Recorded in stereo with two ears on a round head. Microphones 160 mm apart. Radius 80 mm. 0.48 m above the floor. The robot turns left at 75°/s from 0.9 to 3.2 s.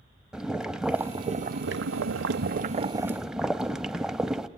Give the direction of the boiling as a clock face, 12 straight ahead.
12 o'clock.